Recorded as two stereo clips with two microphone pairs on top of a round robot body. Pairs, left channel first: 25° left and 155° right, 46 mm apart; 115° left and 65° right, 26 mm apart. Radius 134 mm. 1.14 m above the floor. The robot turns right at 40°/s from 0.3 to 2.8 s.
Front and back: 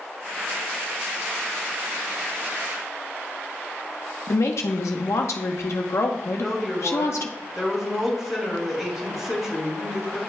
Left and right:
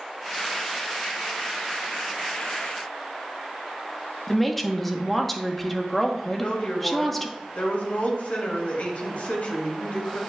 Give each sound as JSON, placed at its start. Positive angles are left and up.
{"t": 4.3, "sound": "a woman speaking", "azimuth_deg": 30, "distance_m": 0.9}
{"t": 6.3, "sound": "a woman speaking", "azimuth_deg": 125, "distance_m": 2.5}